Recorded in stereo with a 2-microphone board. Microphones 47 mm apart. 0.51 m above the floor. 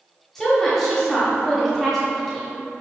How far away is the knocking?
I don't hear knocking.